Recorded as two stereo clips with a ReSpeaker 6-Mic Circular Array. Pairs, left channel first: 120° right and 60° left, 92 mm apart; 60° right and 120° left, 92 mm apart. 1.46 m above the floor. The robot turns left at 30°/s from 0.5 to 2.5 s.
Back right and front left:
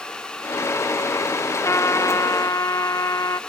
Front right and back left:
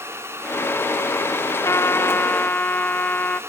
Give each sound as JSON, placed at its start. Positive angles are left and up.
{"t": 1.6, "sound": "a trumpet", "azimuth_deg": -90}